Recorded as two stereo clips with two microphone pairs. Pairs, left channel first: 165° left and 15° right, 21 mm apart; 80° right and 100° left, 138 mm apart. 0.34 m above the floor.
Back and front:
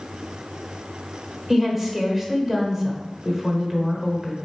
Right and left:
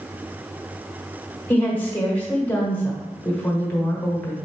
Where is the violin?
No violin in this recording.